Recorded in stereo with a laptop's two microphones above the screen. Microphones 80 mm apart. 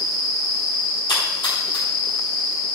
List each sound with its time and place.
1.1 s a splash: 85° left, 4.5 m